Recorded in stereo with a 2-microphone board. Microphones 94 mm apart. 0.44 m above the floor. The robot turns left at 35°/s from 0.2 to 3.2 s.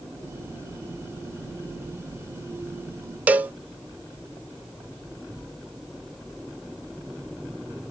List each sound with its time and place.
3.3 s a cowbell: 15° right (ahead or behind), 0.5 m